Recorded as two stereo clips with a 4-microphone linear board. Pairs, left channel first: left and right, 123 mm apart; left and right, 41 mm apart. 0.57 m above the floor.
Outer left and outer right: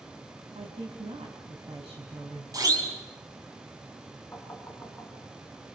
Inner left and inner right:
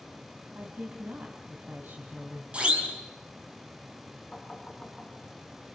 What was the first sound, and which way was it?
A woman speaking, 55° right (ahead or behind).